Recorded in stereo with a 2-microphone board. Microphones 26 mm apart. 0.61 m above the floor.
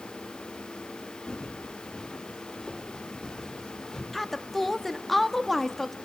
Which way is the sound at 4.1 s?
5° left (ahead or behind).